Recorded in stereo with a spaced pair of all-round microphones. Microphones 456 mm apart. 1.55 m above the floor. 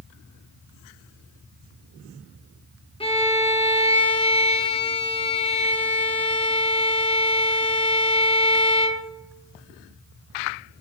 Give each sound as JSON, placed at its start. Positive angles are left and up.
{"t": 3.0, "sound": "a violin", "side_deg": 10, "distance_m": 0.7}